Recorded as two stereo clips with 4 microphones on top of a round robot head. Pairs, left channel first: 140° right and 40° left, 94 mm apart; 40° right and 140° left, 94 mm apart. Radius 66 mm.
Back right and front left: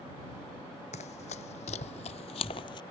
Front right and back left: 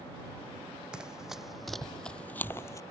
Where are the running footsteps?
140° right; by 2.8 s 100° right.